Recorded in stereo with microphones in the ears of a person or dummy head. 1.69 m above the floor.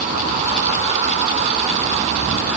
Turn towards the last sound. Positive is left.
No sound to turn to.